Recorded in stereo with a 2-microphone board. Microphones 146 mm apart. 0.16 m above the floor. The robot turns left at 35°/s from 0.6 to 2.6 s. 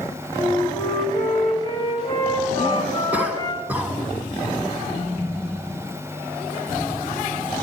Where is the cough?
10° right (ahead or behind), 1.5 m.